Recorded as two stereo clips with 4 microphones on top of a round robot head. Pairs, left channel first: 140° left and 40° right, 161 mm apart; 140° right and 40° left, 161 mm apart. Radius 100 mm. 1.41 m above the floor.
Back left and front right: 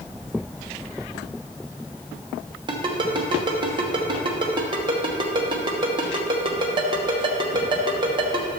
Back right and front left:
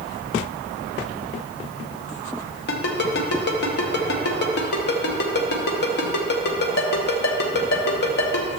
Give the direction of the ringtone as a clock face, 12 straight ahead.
4 o'clock.